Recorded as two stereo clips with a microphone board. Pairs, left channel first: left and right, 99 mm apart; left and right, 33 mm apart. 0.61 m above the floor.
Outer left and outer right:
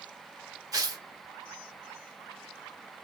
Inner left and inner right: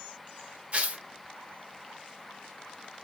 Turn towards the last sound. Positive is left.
turn(degrees=-35)  # may be behind; listen again after turning